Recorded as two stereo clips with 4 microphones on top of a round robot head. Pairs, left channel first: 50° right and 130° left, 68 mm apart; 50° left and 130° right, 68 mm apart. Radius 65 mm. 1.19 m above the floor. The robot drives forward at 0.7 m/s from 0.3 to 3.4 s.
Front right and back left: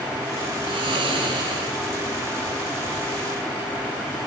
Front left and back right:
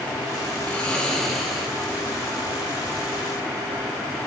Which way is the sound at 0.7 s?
125° left.